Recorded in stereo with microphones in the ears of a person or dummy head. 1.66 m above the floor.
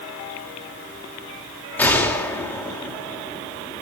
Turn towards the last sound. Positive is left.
turn(degrees=10)  # may be behind; listen again after turning